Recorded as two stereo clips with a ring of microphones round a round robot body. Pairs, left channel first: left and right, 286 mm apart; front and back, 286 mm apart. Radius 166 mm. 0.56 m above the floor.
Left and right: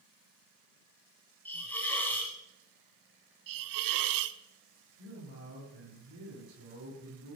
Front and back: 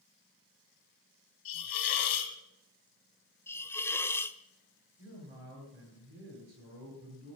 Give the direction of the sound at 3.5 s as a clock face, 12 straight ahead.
3 o'clock.